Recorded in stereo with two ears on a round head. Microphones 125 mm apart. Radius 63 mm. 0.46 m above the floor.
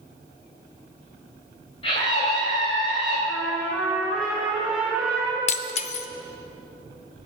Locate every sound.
1.8 s a scream: 40° left (ahead or behind), 3 m
3.3 s a trumpet: 5° right (ahead or behind), 5 m
5.5 s breaking glass: 45° left (ahead or behind), 0.7 m